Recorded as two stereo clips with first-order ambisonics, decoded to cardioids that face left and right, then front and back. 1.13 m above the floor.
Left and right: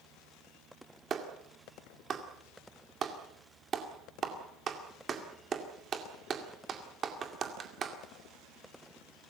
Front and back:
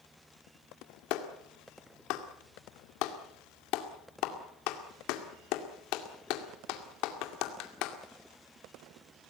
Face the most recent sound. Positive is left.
turn(degrees=-25)